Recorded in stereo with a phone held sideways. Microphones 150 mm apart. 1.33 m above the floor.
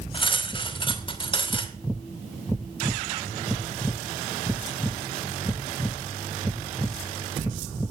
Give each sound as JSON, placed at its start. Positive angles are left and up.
{"t": 0.1, "sound": "cutlery clinking", "side_deg": 35, "distance_m": 2.5}